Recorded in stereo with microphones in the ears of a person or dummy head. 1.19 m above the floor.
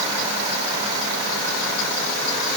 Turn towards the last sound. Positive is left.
No sound to turn to.